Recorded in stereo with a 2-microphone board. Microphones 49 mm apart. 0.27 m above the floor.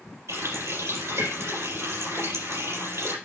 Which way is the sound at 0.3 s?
80° right.